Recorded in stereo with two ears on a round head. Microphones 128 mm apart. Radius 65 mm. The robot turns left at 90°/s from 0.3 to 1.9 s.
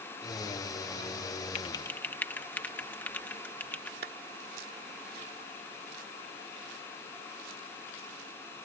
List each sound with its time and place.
1.6 s typing on a keyboard: 45° left (ahead or behind); by 3.9 s 10° left (ahead or behind)
4.0 s a clap: 70° right (ahead or behind)